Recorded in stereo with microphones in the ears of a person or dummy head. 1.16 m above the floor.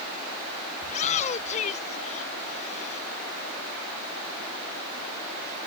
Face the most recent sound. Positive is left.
turn(degrees=45)  # may be behind; listen again after turning